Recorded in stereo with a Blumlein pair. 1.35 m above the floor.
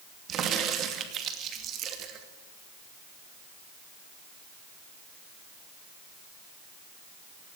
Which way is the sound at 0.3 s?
30° right.